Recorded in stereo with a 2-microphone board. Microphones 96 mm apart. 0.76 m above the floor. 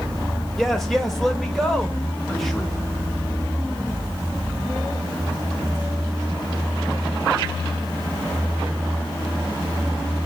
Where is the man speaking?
Centre (ahead or behind), 1.1 m.